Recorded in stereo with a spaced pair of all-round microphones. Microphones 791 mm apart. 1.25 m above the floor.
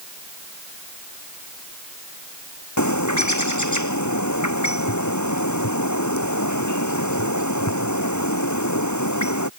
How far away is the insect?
I don't hear an insect.